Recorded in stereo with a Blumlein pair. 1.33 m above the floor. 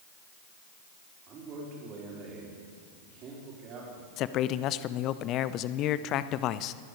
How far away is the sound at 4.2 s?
About 0.6 m.